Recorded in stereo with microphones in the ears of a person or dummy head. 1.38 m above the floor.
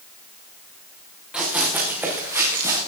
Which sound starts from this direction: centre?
Running footsteps, at 1.3 s.